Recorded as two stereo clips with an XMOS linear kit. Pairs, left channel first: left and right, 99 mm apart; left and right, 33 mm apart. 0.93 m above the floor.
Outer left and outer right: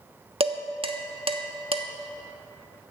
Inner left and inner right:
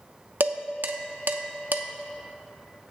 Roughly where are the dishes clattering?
Right.